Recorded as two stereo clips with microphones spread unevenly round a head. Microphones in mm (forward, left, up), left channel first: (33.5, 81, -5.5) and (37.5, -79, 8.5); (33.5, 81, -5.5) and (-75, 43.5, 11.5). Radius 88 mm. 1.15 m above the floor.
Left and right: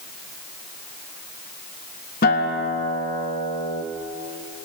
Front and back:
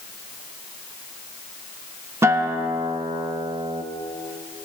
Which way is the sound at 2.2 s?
135° left.